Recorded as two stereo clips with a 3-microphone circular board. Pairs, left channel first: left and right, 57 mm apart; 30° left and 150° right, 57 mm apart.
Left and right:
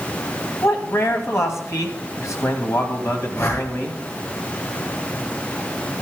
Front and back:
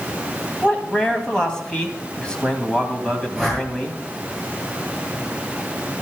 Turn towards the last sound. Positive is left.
turn(degrees=115)